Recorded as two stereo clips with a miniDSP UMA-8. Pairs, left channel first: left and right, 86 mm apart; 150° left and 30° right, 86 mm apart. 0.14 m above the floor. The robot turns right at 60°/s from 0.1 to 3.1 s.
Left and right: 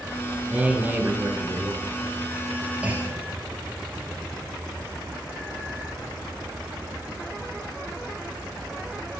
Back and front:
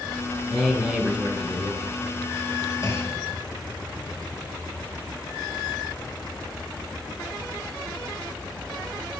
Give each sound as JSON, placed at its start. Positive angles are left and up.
{"t": 0.5, "sound": "a man speaking", "azimuth_deg": -105, "distance_m": 1.2}
{"t": 2.8, "sound": "a clunk", "azimuth_deg": -160, "distance_m": 1.2}